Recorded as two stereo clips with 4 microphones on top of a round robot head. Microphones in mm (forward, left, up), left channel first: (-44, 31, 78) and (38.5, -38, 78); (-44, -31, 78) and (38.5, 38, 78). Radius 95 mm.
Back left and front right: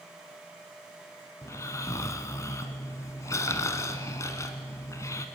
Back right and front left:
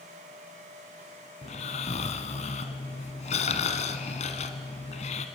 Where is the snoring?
155° right, 1.1 m.